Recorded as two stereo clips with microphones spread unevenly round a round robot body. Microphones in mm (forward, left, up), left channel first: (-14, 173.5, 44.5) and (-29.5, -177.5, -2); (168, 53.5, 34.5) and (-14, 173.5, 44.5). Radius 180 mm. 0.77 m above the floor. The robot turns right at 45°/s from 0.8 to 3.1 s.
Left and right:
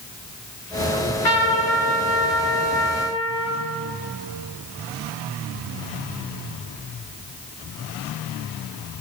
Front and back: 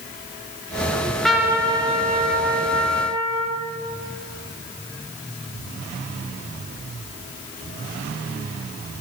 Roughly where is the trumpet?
Ahead left.